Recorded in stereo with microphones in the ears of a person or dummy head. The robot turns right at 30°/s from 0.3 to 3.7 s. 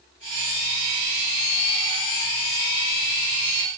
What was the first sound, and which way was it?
Only background noise.